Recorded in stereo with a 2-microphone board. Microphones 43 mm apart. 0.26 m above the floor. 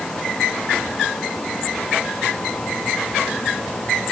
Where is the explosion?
No explosion in this recording.